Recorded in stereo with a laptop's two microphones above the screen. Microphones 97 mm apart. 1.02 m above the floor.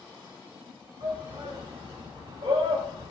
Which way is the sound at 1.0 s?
60° right (ahead or behind).